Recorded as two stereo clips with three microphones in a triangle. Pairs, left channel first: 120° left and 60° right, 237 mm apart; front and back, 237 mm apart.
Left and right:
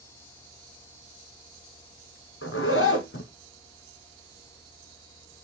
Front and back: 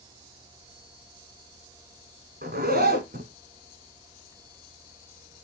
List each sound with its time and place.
2.4 s a zipper: 135° left, 1.4 m